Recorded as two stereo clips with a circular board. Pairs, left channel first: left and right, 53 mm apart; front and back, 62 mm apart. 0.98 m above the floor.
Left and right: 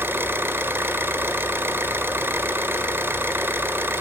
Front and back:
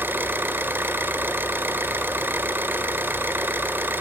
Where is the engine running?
130° right, 1.3 m.